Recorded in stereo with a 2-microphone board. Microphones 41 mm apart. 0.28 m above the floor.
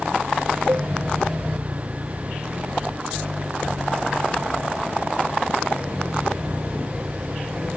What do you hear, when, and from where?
0.7 s a cowbell: 55° right (ahead or behind)